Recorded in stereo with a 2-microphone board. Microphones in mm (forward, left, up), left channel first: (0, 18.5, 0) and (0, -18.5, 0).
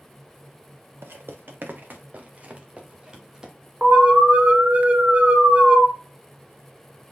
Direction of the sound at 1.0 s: 75° right (ahead or behind).